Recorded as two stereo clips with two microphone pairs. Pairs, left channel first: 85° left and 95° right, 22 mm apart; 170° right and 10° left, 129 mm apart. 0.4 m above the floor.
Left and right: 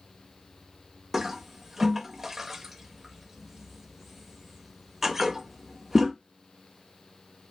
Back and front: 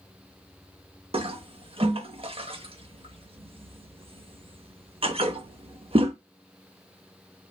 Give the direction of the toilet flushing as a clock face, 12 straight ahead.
1 o'clock.